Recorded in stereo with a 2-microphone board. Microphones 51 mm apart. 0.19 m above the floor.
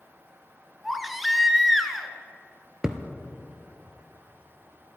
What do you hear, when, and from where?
0.8 s a baby crying: centre (ahead or behind), 0.9 m
2.8 s a thud: 10° right (ahead or behind), 1.0 m